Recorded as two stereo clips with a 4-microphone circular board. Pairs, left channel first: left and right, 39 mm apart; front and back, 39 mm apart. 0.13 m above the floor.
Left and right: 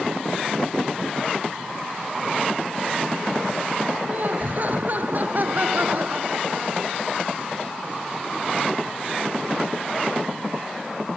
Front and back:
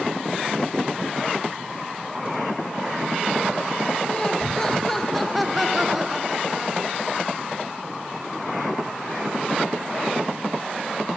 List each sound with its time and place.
4.1 s laughter: 60° right; by 7.0 s 125° right